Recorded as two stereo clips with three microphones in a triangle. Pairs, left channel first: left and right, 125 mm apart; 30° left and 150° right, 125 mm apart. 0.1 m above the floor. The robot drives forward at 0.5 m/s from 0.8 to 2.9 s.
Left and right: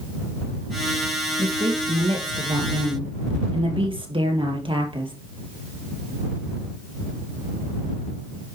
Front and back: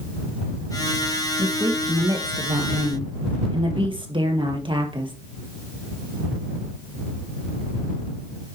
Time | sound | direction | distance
1.4 | a woman speaking | 100° right | 2.5 m